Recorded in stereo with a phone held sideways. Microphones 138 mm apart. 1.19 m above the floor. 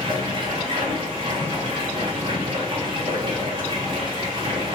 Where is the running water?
40° right (ahead or behind), 1.5 m.